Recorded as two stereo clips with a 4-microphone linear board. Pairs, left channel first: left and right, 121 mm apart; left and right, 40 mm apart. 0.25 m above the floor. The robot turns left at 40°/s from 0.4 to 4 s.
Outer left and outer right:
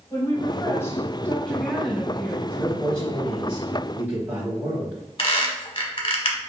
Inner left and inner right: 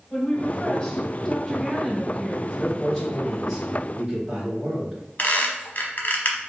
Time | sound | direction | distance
0.1 | a woman speaking | 55° left | 1.3 m
2.5 | a man speaking | 30° left | 1.3 m
5.2 | a squeak | 50° left (ahead or behind) | 0.9 m